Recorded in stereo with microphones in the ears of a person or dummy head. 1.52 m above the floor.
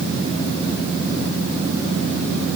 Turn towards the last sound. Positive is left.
No sound to turn to.